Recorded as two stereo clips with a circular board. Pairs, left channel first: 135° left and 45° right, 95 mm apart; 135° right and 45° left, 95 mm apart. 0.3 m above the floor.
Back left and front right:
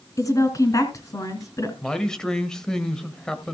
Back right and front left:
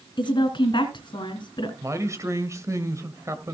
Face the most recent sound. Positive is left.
turn(degrees=60)